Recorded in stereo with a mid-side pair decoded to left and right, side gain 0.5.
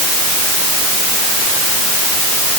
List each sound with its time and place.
Only background noise.